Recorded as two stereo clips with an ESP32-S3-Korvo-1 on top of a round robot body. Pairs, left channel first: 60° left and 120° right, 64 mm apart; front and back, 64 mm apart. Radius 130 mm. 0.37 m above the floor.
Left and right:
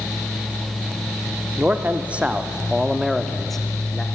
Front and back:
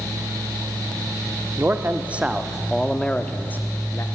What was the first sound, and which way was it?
A man speaking, 165° right.